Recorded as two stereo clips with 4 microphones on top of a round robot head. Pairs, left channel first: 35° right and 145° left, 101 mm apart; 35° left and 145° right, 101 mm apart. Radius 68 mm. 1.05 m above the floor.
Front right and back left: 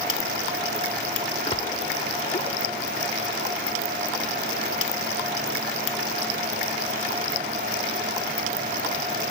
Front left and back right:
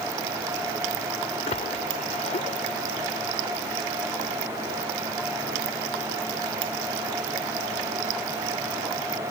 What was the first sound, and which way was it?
A splash, 5° left.